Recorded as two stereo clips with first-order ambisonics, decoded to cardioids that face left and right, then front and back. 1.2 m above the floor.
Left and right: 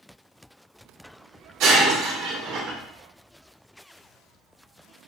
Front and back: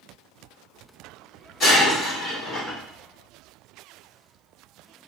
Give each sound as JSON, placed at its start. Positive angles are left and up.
{"t": 1.6, "sound": "breaking glass", "azimuth_deg": -60, "distance_m": 2.0}